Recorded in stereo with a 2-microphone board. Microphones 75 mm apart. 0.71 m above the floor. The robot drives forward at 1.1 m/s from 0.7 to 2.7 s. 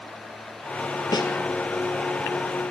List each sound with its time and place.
1.1 s a snare drum: 65° left (ahead or behind), 3.5 m